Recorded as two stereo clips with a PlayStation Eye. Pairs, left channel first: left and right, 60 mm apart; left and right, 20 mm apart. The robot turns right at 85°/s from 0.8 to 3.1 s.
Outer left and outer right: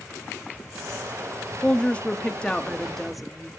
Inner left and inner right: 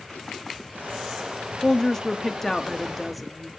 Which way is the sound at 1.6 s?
15° left (ahead or behind).